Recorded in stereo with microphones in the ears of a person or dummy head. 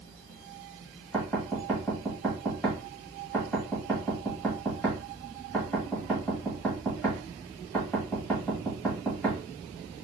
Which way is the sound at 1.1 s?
5° left (ahead or behind).